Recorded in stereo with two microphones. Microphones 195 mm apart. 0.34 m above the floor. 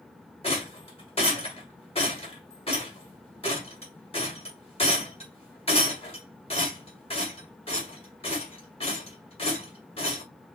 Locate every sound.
0.4 s a rattle: 30° left (ahead or behind), 1.7 m